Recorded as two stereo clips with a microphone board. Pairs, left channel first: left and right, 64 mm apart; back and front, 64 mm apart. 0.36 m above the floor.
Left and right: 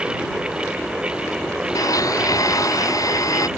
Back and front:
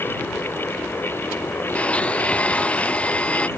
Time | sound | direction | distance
1.8 | a blender | 110° left | ?